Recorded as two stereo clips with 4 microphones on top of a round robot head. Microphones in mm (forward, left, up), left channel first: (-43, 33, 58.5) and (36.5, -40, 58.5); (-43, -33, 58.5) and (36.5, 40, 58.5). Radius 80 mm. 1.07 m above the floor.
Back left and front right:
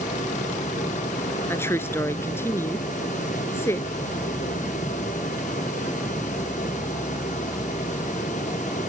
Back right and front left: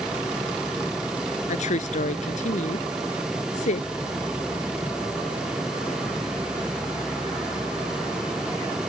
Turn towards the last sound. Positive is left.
turn(degrees=-155)